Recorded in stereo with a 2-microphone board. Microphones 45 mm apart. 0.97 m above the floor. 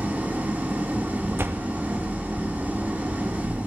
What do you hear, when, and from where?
0.0 s an engine running: 40° right (ahead or behind), 1.6 m
1.4 s a door slam: 55° right (ahead or behind), 0.6 m